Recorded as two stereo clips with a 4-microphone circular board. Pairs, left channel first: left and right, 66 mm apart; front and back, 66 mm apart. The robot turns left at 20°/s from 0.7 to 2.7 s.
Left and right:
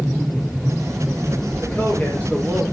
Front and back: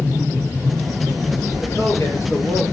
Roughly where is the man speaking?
Ahead left.